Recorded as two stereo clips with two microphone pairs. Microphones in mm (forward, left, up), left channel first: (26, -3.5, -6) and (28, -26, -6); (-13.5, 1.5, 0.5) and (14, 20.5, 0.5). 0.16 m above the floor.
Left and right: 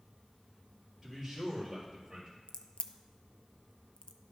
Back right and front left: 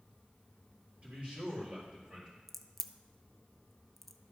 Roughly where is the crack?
Behind left.